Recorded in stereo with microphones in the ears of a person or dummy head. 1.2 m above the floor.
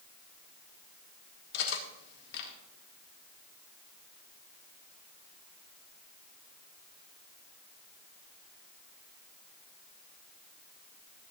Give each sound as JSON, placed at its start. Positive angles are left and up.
{"t": 1.5, "sound": "cutlery clinking", "side_deg": 70, "distance_m": 1.7}